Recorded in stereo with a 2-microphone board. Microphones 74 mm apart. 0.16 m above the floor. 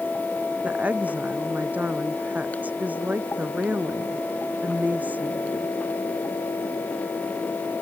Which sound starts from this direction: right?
A woman speaking, at 0.6 s.